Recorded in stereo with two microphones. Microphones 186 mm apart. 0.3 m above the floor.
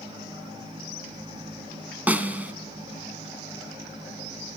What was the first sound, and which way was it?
A snare drum, 10° right (ahead or behind).